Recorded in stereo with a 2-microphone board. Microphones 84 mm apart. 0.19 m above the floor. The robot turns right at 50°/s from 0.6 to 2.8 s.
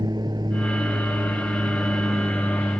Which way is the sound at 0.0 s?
115° right.